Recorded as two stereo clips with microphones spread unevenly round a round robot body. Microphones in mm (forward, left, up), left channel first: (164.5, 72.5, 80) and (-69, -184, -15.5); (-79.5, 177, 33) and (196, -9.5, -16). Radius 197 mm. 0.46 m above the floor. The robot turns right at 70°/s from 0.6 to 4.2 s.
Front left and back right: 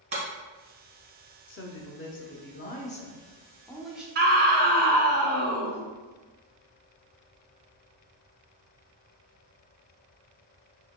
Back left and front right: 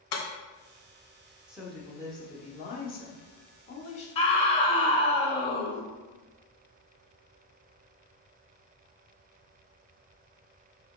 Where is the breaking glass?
155° left, 1.2 m.